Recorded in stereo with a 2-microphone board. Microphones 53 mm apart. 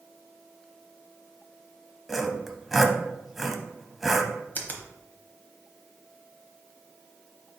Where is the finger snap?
35° left (ahead or behind), 0.9 m.